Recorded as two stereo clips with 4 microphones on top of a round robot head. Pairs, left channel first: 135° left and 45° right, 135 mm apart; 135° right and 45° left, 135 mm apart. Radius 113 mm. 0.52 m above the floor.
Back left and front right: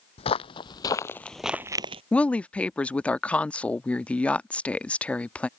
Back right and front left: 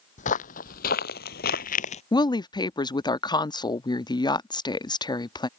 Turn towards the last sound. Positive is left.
turn(degrees=-150)